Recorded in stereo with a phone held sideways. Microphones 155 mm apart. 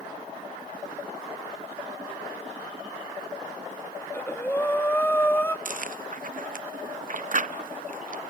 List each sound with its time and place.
4.0 s breathing: 10° left (ahead or behind), 1.3 m
5.7 s chewing: 55° right (ahead or behind), 0.6 m